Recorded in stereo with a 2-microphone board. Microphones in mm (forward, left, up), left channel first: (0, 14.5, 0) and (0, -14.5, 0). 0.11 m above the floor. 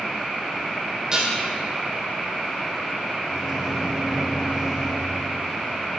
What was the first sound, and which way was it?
Dishes clattering, 20° right (ahead or behind).